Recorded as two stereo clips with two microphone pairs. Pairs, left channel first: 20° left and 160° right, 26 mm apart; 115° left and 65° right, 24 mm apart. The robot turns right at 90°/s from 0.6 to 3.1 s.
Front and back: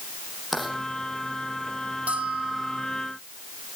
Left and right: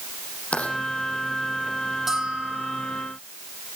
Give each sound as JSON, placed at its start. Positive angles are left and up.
{"t": 0.5, "sound": "writing", "azimuth_deg": 110, "distance_m": 6.0}
{"t": 2.1, "sound": "a bell", "azimuth_deg": -140, "distance_m": 5.5}